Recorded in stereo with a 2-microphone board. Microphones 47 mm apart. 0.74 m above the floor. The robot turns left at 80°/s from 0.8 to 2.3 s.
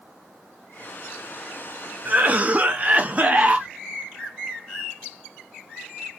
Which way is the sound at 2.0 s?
40° right (ahead or behind).